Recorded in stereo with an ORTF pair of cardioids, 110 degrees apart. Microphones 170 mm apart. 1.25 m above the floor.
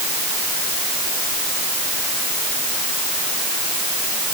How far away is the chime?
I don't hear a chime.